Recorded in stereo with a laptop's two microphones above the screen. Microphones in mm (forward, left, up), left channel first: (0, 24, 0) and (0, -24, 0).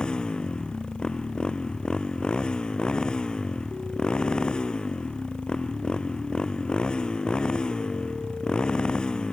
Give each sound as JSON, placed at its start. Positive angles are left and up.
{"t": 0.0, "sound": "a motorcycle", "side_deg": 15}